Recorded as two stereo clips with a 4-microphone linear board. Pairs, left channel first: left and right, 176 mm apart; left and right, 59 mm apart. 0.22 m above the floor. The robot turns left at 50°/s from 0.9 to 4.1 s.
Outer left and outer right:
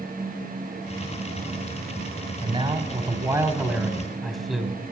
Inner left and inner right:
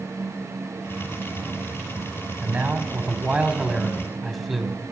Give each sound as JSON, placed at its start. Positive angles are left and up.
{"t": 2.4, "sound": "a man speaking", "azimuth_deg": -95, "distance_m": 1.3}